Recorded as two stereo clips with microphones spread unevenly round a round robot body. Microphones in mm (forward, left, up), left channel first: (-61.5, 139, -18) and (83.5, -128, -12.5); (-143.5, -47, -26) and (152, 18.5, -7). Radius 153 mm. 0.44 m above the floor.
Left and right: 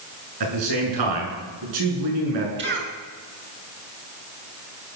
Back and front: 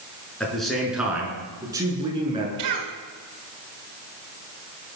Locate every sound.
0.4 s a man speaking: 80° right, 6.5 m; by 2.5 s 60° right, 6.5 m
2.6 s a cough: 10° right, 6 m